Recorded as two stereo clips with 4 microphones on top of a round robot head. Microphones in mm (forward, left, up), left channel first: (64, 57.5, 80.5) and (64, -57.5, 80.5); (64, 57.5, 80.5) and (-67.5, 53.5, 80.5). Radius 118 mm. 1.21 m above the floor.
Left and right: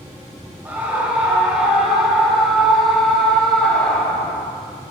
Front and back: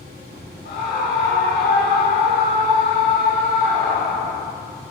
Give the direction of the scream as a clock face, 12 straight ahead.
12 o'clock.